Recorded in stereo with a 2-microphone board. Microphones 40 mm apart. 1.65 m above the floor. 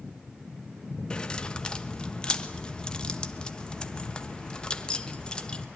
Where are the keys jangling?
25° left (ahead or behind), 1.2 m.